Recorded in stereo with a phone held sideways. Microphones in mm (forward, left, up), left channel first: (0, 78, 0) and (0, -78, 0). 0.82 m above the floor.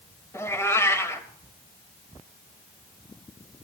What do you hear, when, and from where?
0.3 s a cat meowing: 15° left (ahead or behind), 0.9 m